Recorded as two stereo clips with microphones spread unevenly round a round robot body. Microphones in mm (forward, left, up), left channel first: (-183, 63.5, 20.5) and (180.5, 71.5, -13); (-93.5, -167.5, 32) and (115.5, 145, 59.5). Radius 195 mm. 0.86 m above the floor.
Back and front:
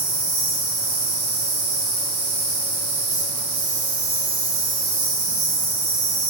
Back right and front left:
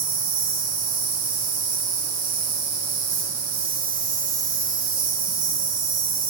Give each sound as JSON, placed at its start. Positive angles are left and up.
{"t": 0.0, "sound": "an insect", "azimuth_deg": -5, "distance_m": 1.0}